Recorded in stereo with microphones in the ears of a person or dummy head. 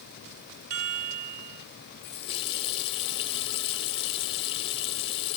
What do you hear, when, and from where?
0.7 s a chime: 35° right (ahead or behind), 1.0 m
2.0 s a running tap: 35° left (ahead or behind), 1.0 m